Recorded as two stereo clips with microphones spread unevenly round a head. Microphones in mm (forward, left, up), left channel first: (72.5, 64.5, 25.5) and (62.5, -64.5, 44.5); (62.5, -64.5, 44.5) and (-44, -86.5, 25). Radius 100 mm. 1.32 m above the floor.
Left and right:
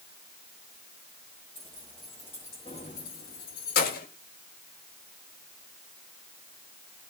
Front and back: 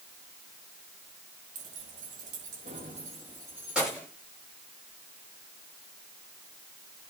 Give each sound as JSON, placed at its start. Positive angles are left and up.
{"t": 1.6, "sound": "keys jangling", "azimuth_deg": -165, "distance_m": 1.2}